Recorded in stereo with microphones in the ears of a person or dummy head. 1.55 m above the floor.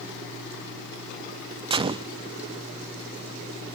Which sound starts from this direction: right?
A gunshot, at 1.7 s.